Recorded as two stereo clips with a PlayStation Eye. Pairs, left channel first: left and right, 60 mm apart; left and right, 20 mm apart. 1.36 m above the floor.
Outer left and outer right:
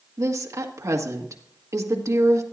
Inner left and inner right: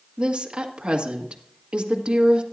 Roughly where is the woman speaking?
Right.